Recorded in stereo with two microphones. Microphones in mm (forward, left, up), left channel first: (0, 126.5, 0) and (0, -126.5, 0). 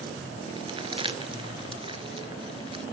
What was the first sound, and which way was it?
Crumpling, 20° right (ahead or behind).